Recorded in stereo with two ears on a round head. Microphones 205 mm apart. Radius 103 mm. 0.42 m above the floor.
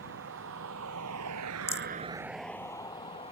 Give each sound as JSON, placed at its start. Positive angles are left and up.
{"t": 0.0, "sound": "a vehicle", "side_deg": -60}
{"t": 1.7, "sound": "a rattle", "side_deg": 10}